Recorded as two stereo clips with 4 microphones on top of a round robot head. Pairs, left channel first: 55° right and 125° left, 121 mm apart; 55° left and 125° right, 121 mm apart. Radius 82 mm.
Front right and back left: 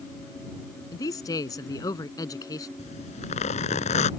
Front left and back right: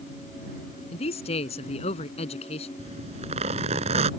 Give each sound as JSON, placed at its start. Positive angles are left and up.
{"t": 0.9, "sound": "a man speaking", "azimuth_deg": 10}
{"t": 2.8, "sound": "a zipper", "azimuth_deg": -85}